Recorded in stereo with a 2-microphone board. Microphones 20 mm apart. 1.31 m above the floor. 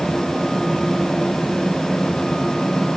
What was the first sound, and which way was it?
Only background noise.